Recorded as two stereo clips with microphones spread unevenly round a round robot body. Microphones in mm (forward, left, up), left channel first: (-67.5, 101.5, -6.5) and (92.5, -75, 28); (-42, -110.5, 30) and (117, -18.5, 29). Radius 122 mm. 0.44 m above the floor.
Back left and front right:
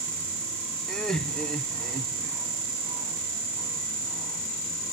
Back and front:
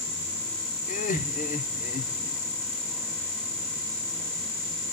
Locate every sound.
0.9 s laughter: 150° right, 1.1 m